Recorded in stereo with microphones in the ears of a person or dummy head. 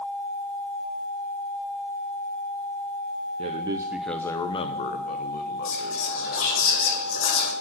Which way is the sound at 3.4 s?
40° right (ahead or behind).